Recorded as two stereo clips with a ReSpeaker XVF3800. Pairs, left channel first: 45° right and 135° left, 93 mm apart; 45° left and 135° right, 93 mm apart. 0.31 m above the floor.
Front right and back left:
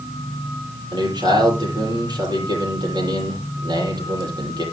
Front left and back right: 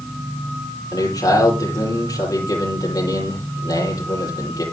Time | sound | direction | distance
0.9 | a man speaking | 95° left | 10 m